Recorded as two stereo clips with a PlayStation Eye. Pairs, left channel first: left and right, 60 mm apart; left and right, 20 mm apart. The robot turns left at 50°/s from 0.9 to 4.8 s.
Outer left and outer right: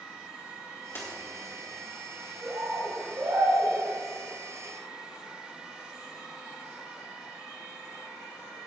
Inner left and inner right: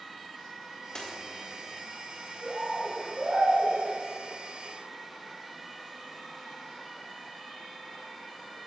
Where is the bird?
70° right, 4 m; by 3.8 s 135° right, 4 m.